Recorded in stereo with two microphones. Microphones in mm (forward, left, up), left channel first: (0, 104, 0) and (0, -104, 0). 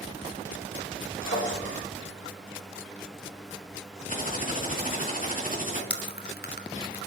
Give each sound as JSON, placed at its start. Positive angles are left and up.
{"t": 1.2, "sound": "a drawer", "side_deg": 70, "distance_m": 7.5}
{"t": 4.1, "sound": "typing on a keyboard", "side_deg": 40, "distance_m": 3.0}
{"t": 5.9, "sound": "chewing", "side_deg": 50, "distance_m": 1.2}